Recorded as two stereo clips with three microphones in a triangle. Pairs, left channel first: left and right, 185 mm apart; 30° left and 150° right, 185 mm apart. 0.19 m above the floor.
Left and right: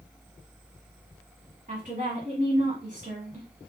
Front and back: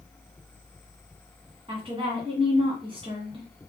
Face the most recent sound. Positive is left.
turn(degrees=-100)